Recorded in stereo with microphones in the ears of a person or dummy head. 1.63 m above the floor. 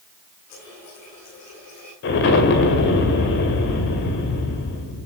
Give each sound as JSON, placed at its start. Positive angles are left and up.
{"t": 0.5, "sound": "a running tap", "side_deg": 45, "distance_m": 9.0}
{"t": 2.0, "sound": "an explosion", "side_deg": 55, "distance_m": 2.0}